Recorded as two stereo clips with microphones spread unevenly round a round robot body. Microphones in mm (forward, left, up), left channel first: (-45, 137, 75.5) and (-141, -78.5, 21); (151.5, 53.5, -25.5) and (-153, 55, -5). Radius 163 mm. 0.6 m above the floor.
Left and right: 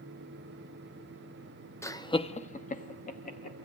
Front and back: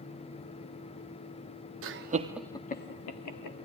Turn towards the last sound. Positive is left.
turn(degrees=0)